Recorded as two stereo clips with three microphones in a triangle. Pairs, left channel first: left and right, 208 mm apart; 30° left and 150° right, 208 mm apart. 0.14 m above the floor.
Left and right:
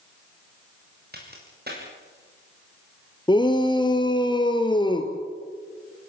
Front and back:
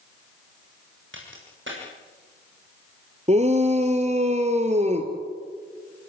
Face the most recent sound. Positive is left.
turn(degrees=155)